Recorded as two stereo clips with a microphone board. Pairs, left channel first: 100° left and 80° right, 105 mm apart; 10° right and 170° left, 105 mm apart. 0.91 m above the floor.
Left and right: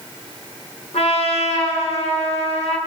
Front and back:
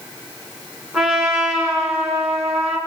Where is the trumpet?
85° left, 7 m.